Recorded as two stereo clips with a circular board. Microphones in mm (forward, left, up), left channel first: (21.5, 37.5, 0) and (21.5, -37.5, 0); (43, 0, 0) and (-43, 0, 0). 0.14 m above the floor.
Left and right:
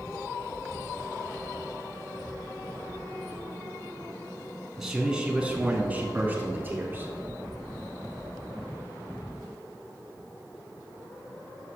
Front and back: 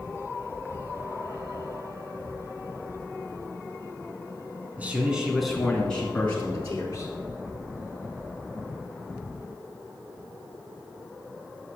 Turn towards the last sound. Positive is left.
turn(degrees=-45)